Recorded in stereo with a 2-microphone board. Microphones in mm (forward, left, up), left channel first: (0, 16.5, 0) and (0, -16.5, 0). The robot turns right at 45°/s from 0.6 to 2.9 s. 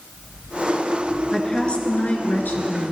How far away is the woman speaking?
About 2.5 m.